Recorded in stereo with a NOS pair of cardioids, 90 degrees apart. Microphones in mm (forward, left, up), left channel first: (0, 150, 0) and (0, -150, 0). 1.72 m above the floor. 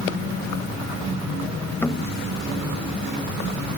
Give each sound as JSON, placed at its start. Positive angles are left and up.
{"t": 1.8, "sound": "knocking", "azimuth_deg": 5}